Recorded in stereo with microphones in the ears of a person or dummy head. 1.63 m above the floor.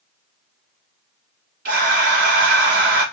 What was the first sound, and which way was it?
Breathing, 55° right (ahead or behind).